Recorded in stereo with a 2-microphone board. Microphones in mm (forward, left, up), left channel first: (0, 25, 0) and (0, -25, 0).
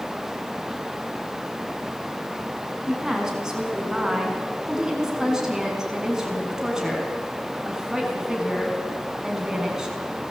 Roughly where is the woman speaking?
Centre.